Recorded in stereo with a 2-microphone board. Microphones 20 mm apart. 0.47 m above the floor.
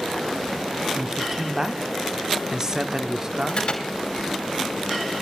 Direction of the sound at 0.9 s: 20° right (ahead or behind).